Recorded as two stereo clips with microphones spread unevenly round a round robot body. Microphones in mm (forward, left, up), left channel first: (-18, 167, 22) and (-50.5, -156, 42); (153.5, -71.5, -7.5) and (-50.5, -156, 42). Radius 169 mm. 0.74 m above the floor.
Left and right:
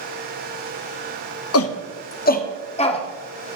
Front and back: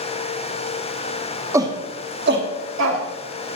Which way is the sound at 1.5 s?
115° left.